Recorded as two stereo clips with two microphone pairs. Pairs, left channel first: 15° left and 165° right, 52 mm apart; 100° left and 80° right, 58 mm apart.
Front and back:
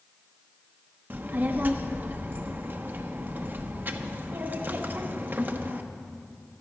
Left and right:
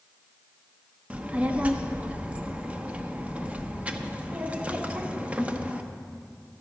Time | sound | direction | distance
1.1 | a child speaking | 135° right | 0.8 m